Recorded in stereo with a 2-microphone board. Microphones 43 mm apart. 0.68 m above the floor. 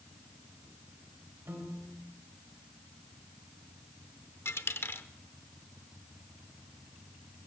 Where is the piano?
70° right (ahead or behind), 4 m.